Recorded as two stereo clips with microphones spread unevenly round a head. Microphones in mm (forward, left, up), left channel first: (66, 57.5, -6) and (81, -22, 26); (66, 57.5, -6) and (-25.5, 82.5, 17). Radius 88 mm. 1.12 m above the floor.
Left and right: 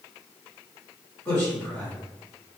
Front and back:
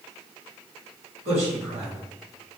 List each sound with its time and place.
1.2 s a man speaking: 165° left, 1.9 m